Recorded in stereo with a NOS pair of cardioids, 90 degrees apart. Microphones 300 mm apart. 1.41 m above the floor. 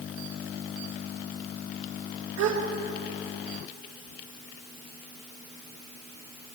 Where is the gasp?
65° right, 1.8 m.